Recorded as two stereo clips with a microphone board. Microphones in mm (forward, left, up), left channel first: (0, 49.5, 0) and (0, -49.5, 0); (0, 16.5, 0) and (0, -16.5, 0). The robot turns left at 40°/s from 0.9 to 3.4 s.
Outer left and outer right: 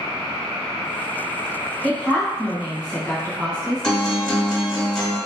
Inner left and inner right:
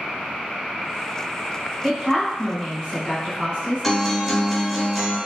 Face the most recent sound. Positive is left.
turn(degrees=5)  # may be behind; listen again after turning